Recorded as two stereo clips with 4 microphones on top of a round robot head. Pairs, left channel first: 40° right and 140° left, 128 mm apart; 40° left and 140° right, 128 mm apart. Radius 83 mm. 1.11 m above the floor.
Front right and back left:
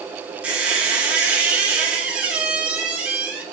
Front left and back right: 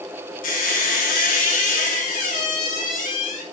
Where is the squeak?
60° left, 2 m.